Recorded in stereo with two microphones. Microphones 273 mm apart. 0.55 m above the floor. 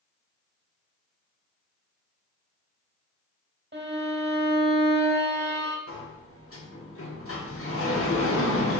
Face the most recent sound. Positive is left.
turn(degrees=55)  # may be behind; listen again after turning